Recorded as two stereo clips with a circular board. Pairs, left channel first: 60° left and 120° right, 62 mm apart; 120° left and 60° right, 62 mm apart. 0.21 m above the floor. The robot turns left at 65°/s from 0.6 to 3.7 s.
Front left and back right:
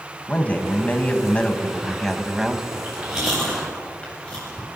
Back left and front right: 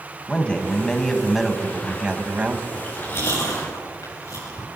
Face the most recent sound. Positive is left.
turn(degrees=130)